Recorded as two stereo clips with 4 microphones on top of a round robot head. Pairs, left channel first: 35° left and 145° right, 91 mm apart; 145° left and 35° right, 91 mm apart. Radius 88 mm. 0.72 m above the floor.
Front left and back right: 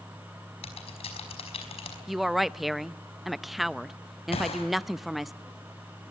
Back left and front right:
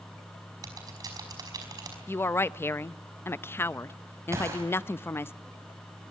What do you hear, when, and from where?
0.6 s typing on a keyboard: 15° left, 5 m
2.1 s a woman speaking: 125° left, 0.6 m
4.3 s a gunshot: 25° left, 5.5 m